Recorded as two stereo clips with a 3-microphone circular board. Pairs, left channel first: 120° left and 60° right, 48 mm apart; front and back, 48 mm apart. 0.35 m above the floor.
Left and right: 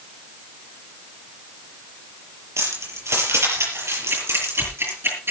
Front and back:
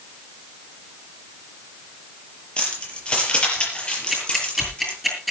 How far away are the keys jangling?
About 6 m.